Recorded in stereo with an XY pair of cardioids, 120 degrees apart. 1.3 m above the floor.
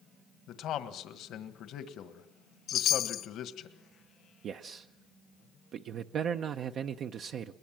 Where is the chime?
60° left, 1.3 m.